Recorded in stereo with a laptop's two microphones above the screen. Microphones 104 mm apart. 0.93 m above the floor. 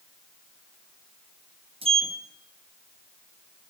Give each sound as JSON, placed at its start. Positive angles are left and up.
{"t": 1.8, "sound": "a sliding door", "side_deg": -75, "distance_m": 0.8}